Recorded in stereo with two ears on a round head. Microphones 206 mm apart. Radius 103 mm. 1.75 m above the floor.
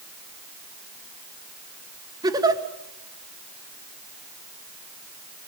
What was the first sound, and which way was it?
A giggle, 15° right (ahead or behind).